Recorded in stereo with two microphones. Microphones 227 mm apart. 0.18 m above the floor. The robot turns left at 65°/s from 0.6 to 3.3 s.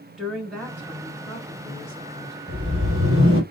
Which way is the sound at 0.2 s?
Straight behind.